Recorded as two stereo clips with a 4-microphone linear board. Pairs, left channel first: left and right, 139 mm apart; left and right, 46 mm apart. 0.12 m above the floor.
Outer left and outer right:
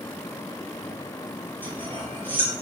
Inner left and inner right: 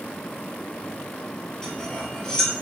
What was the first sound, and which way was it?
Cutlery clinking, 15° left (ahead or behind).